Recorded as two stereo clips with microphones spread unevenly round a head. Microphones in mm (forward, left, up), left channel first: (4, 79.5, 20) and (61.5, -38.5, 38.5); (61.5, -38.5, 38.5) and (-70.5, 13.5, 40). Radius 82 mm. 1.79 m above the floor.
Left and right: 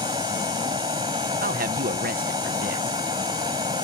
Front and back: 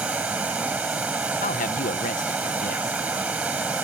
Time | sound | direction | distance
0.0 | running water | 120° right | ?
1.4 | a man speaking | 55° right | ?